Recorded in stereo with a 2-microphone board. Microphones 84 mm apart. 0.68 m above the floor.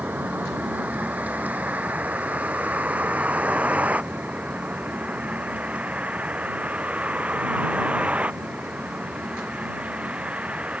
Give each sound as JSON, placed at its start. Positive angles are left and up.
{"t": 0.0, "sound": "a vehicle", "side_deg": -20}